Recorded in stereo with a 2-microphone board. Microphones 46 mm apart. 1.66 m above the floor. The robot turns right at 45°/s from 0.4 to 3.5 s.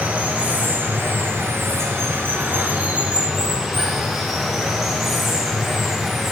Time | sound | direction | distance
0.0 | running water | 150° right | 1.3 m